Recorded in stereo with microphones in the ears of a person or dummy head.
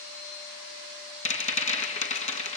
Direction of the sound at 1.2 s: 35° left (ahead or behind).